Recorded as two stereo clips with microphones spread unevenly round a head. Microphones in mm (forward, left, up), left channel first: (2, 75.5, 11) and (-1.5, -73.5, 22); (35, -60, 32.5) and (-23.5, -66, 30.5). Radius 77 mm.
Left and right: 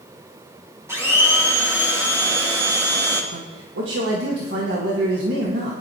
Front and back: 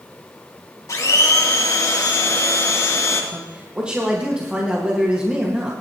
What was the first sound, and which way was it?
A blender, 15° right.